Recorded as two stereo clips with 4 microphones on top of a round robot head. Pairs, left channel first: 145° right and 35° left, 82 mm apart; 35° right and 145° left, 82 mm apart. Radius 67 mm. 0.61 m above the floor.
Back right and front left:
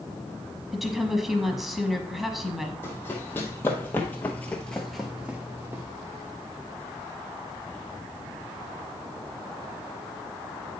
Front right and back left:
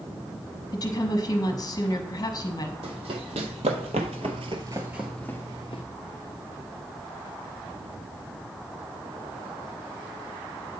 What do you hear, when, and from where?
0.7 s a woman speaking: 50° right, 1.0 m
2.8 s running footsteps: 150° left, 1.4 m; by 5.8 s 25° right, 0.7 m